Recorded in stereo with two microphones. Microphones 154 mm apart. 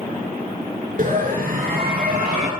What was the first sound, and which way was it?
A scream, 60° right (ahead or behind).